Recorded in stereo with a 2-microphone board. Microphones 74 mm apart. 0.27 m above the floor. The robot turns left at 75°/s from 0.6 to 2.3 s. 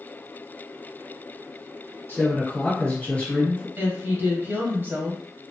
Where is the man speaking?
30° left (ahead or behind), 1.2 m; by 3.7 s 20° left (ahead or behind), 1.2 m.